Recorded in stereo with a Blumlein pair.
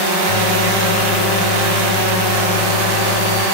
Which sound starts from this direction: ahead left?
A microwave, at 0.3 s.